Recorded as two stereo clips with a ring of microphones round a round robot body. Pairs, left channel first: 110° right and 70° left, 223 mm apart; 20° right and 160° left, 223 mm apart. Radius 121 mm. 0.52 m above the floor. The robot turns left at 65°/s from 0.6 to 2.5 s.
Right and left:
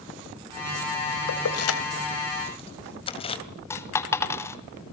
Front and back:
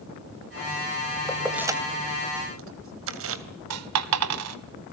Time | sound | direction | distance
1.3 | keys jangling | 100° right | 2.5 m
3.7 | a dropped coin | 170° left | 1.7 m